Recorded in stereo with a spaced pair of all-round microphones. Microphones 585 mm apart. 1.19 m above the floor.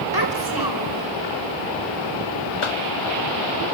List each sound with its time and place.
0.1 s a child speaking: 40° right (ahead or behind), 4.5 m
2.6 s a cough: 55° left (ahead or behind), 0.8 m